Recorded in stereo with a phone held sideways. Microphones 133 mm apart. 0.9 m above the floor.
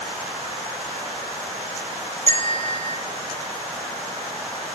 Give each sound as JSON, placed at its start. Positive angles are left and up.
{"t": 2.3, "sound": "a bell", "side_deg": -55, "distance_m": 3.5}